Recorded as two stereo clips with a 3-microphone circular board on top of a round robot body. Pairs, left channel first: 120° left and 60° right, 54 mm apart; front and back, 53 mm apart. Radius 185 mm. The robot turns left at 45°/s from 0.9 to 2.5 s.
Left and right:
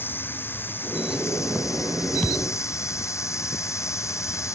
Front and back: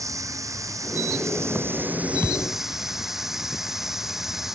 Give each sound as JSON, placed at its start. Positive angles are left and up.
{"t": 0.0, "sound": "running water", "azimuth_deg": 170}
{"t": 2.2, "sound": "a thud", "azimuth_deg": 55}